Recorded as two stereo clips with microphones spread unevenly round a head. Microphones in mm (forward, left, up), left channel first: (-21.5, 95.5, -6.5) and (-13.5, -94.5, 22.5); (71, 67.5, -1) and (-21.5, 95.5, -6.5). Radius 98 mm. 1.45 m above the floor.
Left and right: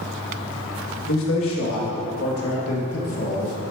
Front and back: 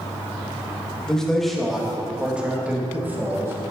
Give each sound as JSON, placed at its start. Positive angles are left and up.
{"t": 1.1, "sound": "a man speaking", "azimuth_deg": 65, "distance_m": 2.0}